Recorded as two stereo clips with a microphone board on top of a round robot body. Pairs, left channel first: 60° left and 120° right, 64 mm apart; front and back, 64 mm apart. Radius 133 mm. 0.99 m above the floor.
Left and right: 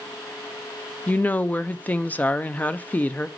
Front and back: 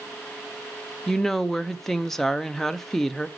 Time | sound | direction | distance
1.1 | a woman speaking | 80° left | 0.8 m